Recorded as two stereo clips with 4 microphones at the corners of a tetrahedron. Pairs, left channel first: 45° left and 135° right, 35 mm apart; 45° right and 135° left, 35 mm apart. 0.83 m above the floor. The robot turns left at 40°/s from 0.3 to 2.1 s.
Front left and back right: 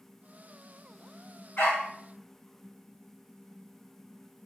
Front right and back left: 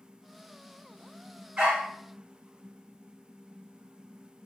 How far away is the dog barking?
About 1.5 m.